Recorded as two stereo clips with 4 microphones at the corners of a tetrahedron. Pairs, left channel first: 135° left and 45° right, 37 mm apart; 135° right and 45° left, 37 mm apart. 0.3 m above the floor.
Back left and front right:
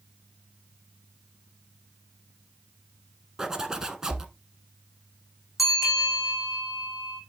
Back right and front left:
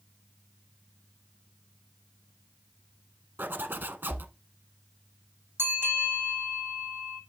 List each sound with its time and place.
3.4 s a zipper: 25° left, 0.9 m
5.6 s a bell: 40° left, 2.5 m